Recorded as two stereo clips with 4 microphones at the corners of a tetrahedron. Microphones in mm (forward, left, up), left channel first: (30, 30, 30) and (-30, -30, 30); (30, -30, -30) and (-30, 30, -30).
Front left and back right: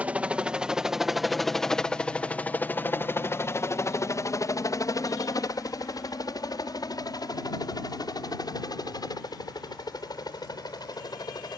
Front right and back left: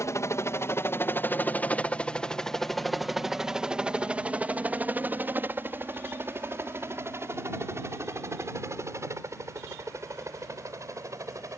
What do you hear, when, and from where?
0.0 s a helicopter: 70° right; by 11.6 s 80° left